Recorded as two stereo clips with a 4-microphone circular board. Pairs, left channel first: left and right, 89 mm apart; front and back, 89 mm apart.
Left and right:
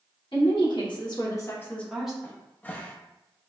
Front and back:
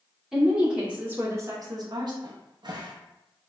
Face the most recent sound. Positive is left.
turn(degrees=155)